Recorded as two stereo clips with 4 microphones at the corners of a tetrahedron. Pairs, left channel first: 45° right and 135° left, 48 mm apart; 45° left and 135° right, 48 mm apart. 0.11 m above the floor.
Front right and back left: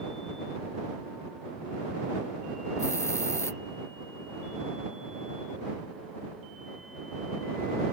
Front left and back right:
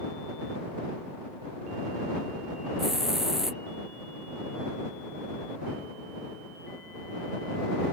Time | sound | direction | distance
2.8 | a hiss | 55° right | ?